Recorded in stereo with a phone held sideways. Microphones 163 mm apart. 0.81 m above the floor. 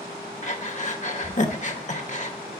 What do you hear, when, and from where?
0.4 s breathing: 50° left (ahead or behind), 0.9 m